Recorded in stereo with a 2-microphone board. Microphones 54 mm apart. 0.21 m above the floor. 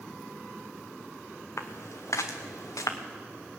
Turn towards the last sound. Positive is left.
turn(degrees=75)  # may be behind; listen again after turning